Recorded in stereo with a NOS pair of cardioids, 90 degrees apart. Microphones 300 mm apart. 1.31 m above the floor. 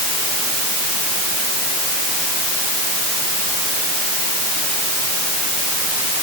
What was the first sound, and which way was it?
Only background noise.